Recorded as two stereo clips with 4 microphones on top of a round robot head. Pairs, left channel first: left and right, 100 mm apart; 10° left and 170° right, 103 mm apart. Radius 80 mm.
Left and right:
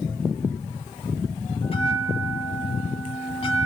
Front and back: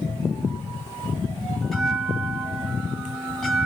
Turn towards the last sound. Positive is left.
turn(degrees=95)